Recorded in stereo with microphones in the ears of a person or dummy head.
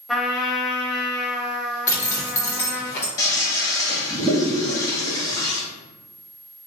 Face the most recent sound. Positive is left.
turn(degrees=20)  # may be behind; listen again after turning